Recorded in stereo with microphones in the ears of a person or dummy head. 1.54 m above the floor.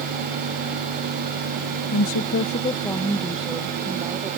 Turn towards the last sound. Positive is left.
turn(degrees=-15)  # may be behind; listen again after turning